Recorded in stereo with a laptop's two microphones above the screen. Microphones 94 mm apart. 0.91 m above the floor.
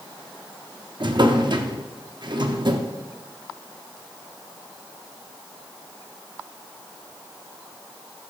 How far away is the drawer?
About 0.8 m.